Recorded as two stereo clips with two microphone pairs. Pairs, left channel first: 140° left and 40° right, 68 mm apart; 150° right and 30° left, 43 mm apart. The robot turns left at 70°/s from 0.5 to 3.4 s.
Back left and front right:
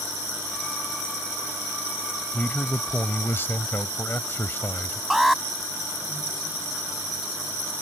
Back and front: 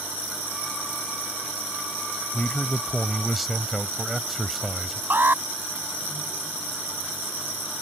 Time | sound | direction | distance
2.3 | a man speaking | 165° right | ?
5.1 | an alarm | 50° left | ?